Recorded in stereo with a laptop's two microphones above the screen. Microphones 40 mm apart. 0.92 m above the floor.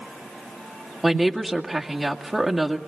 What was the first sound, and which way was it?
A woman speaking, 5° right (ahead or behind).